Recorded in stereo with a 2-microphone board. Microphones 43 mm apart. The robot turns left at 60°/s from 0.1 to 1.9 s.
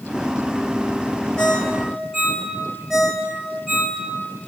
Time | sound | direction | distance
1.4 | a ringtone | 20° left (ahead or behind) | 1.3 m